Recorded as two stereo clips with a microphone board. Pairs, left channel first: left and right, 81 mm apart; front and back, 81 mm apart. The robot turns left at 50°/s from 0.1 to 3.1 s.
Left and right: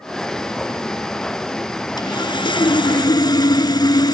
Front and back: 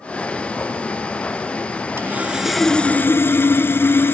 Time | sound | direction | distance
2.0 | sawing | 120° left | 0.7 m